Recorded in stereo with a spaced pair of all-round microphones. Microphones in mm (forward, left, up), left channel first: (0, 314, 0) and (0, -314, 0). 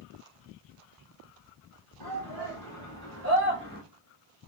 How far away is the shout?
About 2.5 m.